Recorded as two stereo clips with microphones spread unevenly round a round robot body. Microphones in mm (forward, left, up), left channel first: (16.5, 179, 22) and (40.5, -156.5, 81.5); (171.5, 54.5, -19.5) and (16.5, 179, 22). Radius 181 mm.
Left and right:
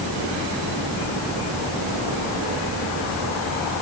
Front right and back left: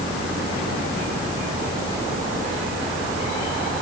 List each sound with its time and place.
Only background noise.